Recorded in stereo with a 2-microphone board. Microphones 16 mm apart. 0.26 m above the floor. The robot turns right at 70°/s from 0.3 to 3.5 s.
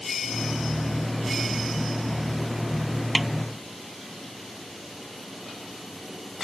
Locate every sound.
3.1 s a snare drum: 5° right (ahead or behind); by 3.3 s 15° right (ahead or behind)